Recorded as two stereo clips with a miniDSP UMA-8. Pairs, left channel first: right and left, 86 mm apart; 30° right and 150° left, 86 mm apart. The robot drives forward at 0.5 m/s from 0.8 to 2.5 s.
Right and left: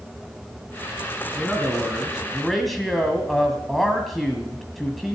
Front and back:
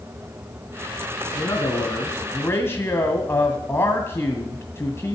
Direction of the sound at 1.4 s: Straight ahead.